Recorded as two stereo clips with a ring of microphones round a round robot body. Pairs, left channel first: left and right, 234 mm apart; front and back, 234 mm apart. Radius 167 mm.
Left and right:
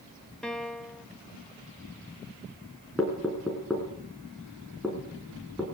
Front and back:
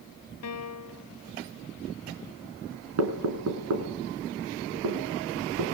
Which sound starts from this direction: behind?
Knocking, at 3.0 s.